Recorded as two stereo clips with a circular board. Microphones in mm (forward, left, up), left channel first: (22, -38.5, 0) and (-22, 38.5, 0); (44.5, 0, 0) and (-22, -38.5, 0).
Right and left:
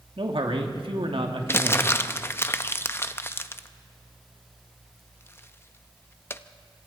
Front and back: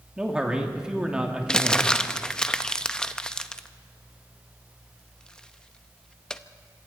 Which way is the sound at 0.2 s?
130° left.